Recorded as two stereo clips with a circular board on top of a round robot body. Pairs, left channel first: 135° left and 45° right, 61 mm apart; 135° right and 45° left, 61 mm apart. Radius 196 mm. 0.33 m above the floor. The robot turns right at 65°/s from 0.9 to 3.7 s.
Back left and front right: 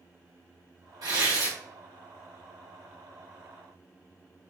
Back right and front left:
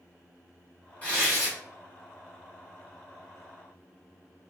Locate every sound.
1.0 s tearing paper: 65° right, 1.7 m; by 1.6 s 30° right, 1.7 m